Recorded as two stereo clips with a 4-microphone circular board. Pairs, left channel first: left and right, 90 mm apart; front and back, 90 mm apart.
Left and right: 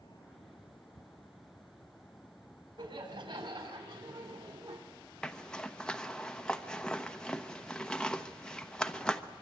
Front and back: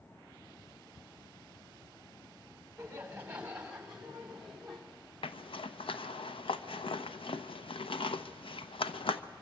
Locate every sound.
2.8 s laughter: 110° right, 5.5 m; by 4.8 s 90° right, 4.5 m
5.2 s a zipper: 10° left, 1.0 m